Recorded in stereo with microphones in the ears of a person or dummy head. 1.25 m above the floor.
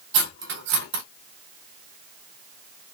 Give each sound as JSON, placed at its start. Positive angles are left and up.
{"t": 0.1, "sound": "cutlery clinking", "side_deg": -65, "distance_m": 0.8}